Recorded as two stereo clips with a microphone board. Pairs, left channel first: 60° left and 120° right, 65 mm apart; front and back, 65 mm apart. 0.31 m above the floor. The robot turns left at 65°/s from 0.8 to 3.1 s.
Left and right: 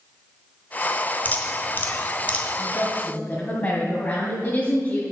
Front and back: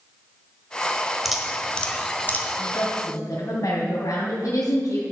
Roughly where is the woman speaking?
Ahead left.